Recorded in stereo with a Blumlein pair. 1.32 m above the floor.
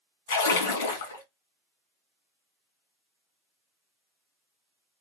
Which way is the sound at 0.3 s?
65° left.